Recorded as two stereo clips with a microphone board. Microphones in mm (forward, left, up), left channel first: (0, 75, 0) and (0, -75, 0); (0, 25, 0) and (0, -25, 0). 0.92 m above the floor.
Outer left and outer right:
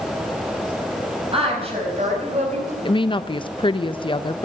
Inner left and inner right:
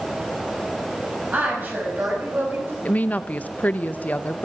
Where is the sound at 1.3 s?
40° right (ahead or behind), 5 m; by 2.8 s 55° right (ahead or behind), 3.5 m.